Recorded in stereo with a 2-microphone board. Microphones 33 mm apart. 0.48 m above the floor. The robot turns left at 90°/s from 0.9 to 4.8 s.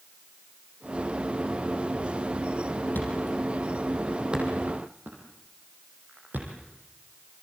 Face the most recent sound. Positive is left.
turn(degrees=-70)  # may be behind; listen again after turning